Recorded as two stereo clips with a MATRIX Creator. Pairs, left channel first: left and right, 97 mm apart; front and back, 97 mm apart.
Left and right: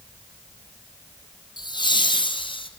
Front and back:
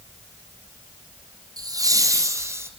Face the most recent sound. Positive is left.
turn(degrees=115)